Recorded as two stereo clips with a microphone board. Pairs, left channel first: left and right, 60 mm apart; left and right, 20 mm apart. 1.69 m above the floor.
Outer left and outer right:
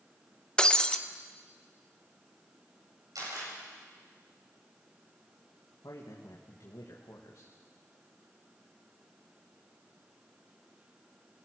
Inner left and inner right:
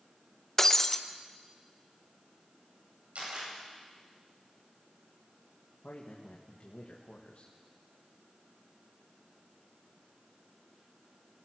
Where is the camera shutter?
90° right, 9 m.